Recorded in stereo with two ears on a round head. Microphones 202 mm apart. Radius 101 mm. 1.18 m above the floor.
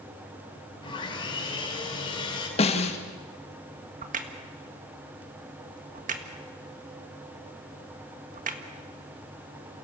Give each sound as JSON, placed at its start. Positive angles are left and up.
{"t": 0.8, "sound": "sawing", "side_deg": 25, "distance_m": 5.0}
{"t": 2.6, "sound": "a snare drum", "side_deg": 30, "distance_m": 1.8}
{"t": 4.0, "sound": "a crack", "side_deg": -35, "distance_m": 1.7}